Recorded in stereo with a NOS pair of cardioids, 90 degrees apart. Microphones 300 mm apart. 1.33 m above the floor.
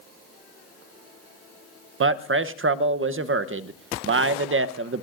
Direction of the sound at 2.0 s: 45° right.